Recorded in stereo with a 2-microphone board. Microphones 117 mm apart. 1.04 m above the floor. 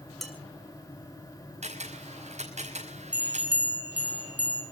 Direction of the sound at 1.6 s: 70° right (ahead or behind).